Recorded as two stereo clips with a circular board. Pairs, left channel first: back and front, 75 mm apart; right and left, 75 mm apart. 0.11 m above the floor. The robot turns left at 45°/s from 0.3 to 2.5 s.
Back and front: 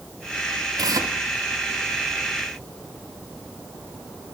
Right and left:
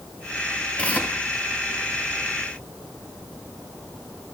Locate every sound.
0.8 s tearing paper: 15° right, 1.3 m; by 1.1 s 30° right, 1.3 m